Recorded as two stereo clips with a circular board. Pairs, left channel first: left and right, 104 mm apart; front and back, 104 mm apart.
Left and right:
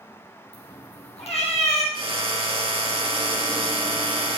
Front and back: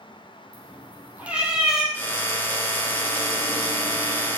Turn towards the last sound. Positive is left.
turn(degrees=-70)